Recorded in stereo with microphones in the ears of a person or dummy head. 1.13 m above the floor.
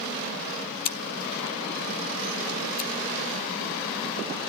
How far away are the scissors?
About 1.0 m.